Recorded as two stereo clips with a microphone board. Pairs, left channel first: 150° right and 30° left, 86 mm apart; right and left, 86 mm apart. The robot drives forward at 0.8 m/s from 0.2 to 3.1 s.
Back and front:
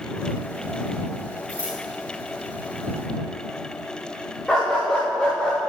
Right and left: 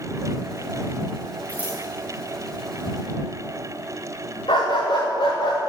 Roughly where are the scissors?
Ahead.